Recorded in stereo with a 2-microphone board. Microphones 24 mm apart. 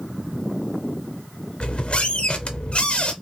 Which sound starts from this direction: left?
A squeak, at 1.6 s.